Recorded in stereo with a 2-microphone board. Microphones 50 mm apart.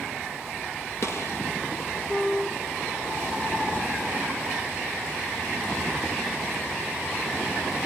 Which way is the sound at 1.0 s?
55° left (ahead or behind).